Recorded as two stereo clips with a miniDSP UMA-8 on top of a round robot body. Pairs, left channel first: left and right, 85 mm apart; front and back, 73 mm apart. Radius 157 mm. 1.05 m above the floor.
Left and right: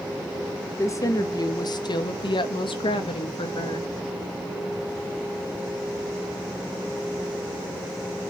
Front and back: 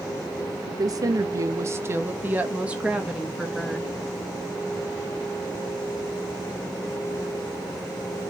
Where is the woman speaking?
150° left, 1.6 m; by 3.9 s 90° left, 2 m.